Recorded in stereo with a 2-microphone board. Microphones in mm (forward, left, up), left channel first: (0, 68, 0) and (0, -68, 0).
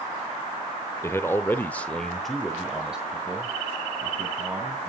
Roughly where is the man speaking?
Centre.